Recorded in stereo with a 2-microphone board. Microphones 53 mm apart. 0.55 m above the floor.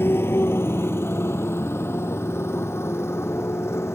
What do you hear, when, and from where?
0.0 s a motorcycle: 50° left (ahead or behind); by 3.9 s 60° left (ahead or behind)